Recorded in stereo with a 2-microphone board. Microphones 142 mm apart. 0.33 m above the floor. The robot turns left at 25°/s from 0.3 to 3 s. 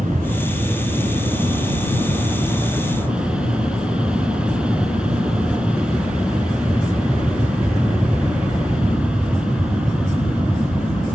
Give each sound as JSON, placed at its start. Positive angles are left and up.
{"t": 0.0, "sound": "an aircraft", "azimuth_deg": -105}